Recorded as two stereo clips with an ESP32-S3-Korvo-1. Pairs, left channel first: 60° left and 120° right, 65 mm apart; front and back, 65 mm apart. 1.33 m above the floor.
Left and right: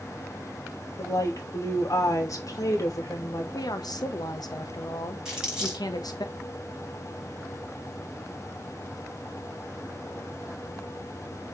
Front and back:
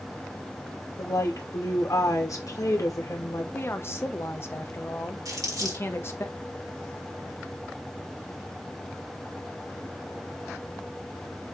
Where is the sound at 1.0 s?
30° left, 2.5 m.